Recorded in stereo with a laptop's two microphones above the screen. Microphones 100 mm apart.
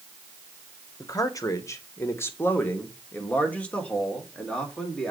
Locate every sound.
1.0 s a man speaking: 35° left (ahead or behind), 0.9 m; by 5.1 s 10° left (ahead or behind), 2.5 m